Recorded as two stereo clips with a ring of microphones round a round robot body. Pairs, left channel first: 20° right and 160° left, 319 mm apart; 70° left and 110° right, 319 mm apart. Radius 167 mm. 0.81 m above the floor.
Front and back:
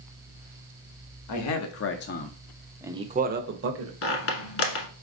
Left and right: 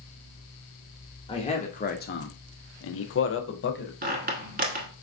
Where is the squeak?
60° right, 0.9 m.